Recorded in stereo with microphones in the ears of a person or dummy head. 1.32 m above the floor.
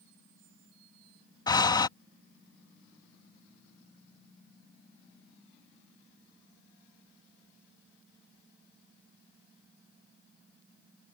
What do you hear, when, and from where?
1.5 s breathing: 20° left (ahead or behind)